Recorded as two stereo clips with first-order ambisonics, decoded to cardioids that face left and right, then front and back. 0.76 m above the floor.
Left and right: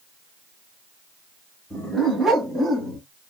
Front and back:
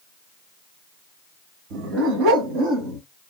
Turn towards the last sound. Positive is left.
turn(degrees=-140)